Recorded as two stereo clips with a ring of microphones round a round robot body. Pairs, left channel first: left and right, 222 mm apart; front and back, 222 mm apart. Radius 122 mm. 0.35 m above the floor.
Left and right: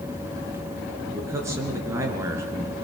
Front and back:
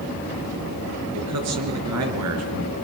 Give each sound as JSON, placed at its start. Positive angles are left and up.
{"t": 1.1, "sound": "a man speaking", "azimuth_deg": -170, "distance_m": 5.0}